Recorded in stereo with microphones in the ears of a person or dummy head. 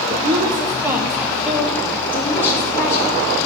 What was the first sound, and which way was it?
A woman speaking, 35° right (ahead or behind).